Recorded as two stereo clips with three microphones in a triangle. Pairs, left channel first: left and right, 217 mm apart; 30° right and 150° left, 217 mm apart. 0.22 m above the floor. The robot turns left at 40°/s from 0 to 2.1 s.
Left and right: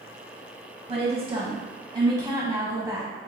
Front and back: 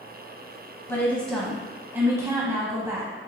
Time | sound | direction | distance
0.9 | a woman speaking | 95° right | 1.1 m